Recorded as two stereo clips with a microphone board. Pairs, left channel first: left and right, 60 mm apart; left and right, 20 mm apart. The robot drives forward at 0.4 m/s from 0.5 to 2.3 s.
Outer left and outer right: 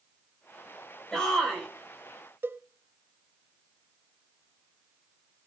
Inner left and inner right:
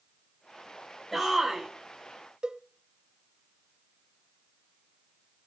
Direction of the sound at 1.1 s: 10° left (ahead or behind).